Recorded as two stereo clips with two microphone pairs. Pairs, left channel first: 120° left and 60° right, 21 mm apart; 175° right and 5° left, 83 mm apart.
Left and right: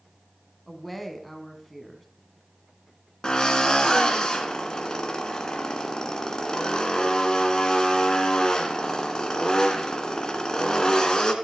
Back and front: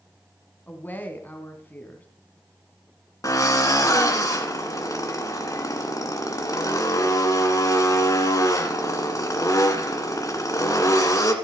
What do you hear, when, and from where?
0.7 s a woman speaking: 155° right, 1.6 m
3.2 s a drill: 160° left, 1.8 m